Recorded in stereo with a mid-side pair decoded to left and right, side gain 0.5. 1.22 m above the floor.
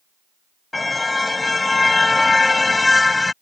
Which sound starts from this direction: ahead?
A car horn, at 0.7 s.